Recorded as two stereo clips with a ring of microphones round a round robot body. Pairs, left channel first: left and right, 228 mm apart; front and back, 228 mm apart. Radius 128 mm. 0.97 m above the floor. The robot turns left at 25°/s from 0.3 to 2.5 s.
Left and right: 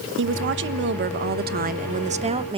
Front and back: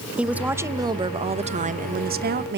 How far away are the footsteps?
I don't hear footsteps.